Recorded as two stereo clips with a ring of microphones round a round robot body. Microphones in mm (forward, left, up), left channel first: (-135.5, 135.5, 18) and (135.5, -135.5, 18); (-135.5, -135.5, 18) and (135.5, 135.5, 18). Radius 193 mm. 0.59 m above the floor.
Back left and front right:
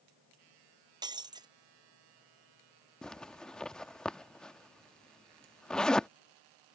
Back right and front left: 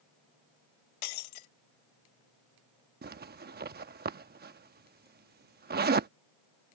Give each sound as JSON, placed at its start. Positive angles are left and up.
{"t": 1.0, "sound": "breaking glass", "azimuth_deg": -125}
{"t": 3.0, "sound": "a zipper", "azimuth_deg": 50}